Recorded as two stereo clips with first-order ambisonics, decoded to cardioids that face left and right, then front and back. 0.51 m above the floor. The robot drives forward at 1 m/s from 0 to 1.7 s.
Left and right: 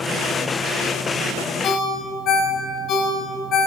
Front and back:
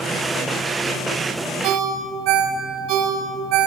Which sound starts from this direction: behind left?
A ringtone, at 1.6 s.